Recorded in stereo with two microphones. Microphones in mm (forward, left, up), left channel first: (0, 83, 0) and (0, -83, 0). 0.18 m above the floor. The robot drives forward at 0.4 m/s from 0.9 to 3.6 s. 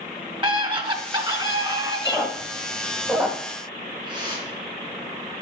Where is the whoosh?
30° right (ahead or behind), 2.5 m.